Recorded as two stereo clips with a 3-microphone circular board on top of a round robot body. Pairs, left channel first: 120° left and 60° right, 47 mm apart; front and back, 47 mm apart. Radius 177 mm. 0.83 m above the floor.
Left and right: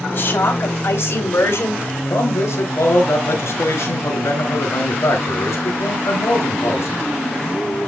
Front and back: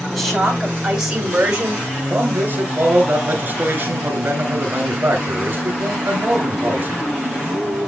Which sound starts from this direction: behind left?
A man speaking, at 2.1 s.